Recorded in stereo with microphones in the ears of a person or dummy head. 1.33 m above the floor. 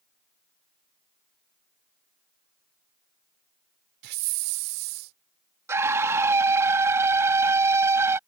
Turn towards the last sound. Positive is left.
turn(degrees=-15)  # may be behind; listen again after turning